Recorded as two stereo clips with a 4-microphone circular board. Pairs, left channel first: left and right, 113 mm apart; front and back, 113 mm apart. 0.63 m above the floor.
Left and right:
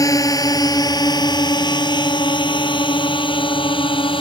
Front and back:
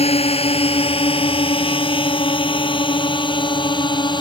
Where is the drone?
30° left; by 4.2 s 50° left.